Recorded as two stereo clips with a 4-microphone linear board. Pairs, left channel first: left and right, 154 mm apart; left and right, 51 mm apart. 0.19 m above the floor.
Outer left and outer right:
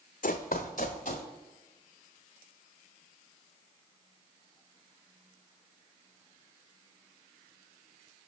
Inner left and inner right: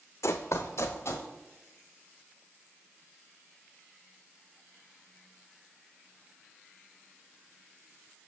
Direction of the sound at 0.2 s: 65° left (ahead or behind).